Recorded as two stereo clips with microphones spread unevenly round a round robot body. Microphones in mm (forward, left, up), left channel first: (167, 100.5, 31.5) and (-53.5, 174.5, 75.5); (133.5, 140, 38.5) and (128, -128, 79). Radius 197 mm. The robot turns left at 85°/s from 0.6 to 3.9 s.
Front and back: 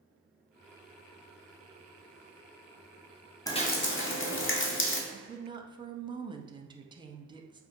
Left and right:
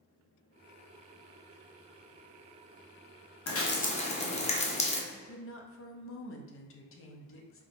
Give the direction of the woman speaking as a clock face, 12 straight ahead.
9 o'clock.